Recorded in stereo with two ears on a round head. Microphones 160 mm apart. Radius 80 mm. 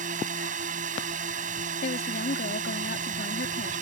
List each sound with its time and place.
0.0 s a drone: 45° right (ahead or behind)
1.8 s a woman speaking: 55° left (ahead or behind)